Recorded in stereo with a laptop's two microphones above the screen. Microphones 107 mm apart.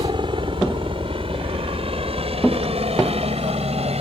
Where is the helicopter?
50° right (ahead or behind); by 4.0 s 70° right (ahead or behind).